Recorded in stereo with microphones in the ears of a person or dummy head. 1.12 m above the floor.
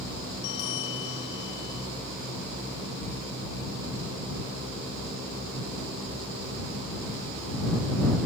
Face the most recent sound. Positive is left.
turn(degrees=70)  # may be behind; listen again after turning